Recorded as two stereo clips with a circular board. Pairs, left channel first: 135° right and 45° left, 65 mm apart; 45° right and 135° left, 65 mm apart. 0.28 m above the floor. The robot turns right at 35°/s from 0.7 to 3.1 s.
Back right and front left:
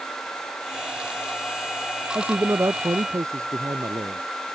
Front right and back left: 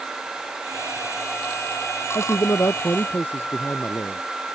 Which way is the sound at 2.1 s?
20° right.